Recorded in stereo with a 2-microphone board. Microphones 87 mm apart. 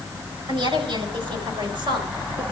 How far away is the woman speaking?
About 5.5 m.